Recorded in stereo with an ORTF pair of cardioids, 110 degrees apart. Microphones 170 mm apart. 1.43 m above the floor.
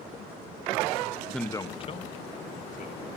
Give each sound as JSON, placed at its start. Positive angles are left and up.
{"t": 1.3, "sound": "a man speaking", "azimuth_deg": 0, "distance_m": 0.8}